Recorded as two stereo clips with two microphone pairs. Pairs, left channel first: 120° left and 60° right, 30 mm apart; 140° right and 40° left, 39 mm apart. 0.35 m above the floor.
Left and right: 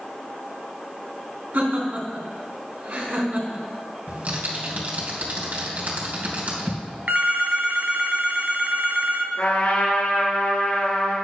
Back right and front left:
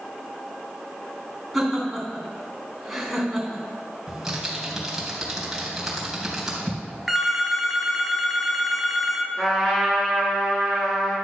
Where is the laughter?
45° right, 3 m.